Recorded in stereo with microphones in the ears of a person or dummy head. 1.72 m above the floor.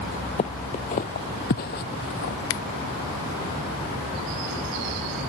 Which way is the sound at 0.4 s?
30° left (ahead or behind).